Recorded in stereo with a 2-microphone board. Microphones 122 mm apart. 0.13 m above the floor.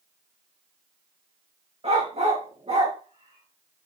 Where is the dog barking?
55° right (ahead or behind), 4 m.